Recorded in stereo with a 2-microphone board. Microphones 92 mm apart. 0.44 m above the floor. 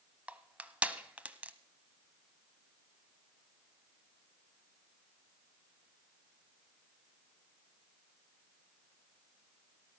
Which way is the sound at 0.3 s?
15° right (ahead or behind).